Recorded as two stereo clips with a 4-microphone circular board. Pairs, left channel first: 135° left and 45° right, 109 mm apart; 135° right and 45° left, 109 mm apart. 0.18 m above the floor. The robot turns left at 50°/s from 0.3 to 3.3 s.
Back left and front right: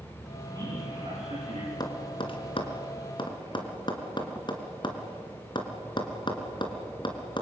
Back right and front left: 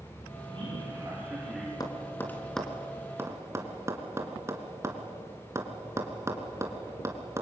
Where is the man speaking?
10° left, 8 m; by 1.7 s 50° right, 8 m.